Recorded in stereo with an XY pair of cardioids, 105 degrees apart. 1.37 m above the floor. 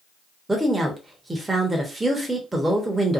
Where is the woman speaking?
15° right, 0.9 m.